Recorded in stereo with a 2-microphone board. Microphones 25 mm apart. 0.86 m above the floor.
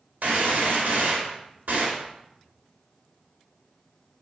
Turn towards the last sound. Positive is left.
turn(degrees=-85)